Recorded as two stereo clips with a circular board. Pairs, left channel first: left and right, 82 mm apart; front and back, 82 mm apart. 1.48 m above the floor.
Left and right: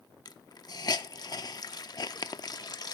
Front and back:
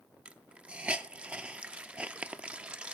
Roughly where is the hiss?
Left.